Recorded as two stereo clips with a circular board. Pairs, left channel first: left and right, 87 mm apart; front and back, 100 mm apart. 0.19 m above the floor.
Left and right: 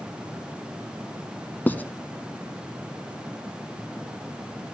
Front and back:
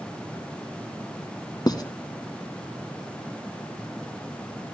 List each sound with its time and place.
1.7 s writing: 30° left, 1.0 m